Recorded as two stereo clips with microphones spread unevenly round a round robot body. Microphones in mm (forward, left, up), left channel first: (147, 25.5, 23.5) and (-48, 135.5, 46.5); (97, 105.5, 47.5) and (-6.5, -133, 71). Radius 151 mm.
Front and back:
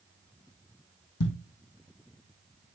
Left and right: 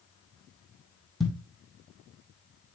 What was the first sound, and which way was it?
A thud, 25° right.